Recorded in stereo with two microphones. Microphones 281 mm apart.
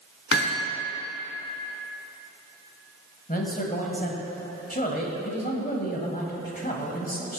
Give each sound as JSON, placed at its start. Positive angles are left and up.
{"t": 0.3, "sound": "hammering", "side_deg": 45, "distance_m": 1.2}
{"t": 3.3, "sound": "a man speaking", "side_deg": 30, "distance_m": 1.3}